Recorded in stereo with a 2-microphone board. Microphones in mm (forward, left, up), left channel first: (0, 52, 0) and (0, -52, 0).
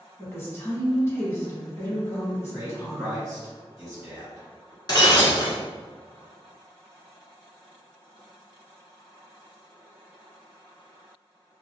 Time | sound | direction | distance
0.2 | a woman speaking | 25° left (ahead or behind) | 1.1 m
2.5 | a man speaking | 25° right (ahead or behind) | 1.6 m
4.9 | breaking glass | 40° left (ahead or behind) | 0.8 m